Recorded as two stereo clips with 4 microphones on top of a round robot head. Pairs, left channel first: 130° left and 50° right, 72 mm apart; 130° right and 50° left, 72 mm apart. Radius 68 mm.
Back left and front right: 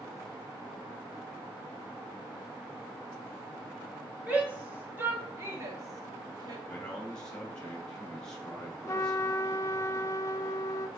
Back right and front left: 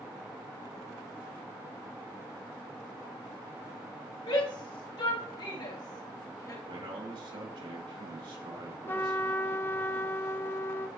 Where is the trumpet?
170° left, 0.5 m.